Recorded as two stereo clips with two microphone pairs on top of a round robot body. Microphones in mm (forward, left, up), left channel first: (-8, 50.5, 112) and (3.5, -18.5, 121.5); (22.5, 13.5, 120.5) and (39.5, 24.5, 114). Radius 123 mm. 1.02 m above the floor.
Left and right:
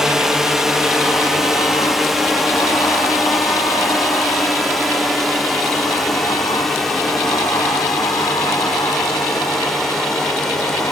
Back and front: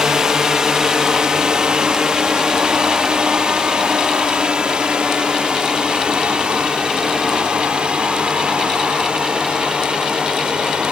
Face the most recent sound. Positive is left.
turn(degrees=15)